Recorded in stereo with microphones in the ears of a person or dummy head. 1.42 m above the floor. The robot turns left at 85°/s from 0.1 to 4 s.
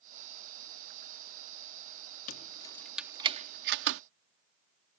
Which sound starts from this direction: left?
Keys jangling, at 2.3 s.